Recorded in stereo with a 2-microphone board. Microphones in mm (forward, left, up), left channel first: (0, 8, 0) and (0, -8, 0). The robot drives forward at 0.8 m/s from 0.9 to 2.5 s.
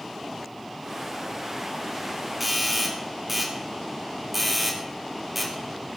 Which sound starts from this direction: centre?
A doorbell, at 2.4 s.